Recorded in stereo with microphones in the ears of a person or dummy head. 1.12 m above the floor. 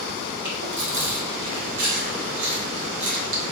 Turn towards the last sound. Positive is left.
turn(degrees=-60)  # may be behind; listen again after turning